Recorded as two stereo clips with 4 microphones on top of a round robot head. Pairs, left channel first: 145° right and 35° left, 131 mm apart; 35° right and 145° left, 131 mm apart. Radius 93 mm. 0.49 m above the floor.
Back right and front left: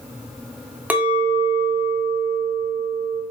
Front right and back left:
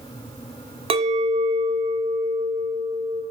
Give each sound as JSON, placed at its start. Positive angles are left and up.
{"t": 0.9, "sound": "a clink", "azimuth_deg": 110, "distance_m": 0.6}